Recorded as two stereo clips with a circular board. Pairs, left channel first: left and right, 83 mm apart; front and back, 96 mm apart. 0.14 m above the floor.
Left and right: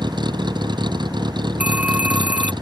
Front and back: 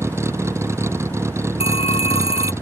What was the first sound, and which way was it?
A vehicle, 120° right.